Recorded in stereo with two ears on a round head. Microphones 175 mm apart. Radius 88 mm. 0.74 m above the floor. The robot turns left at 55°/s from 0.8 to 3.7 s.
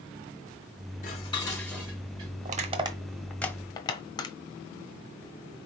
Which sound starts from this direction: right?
Crushing, at 2.5 s.